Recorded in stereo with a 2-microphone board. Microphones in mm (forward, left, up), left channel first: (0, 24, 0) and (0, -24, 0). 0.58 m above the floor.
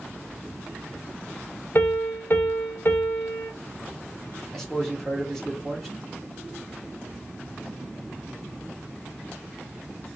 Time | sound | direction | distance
1.8 | a piano | 50° left (ahead or behind) | 1.1 m
4.5 | a man speaking | 10° left (ahead or behind) | 1.1 m